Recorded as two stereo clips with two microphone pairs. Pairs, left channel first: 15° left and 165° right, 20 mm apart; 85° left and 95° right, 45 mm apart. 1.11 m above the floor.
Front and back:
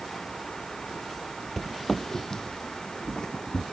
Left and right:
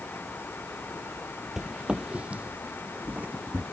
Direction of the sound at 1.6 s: 40° right.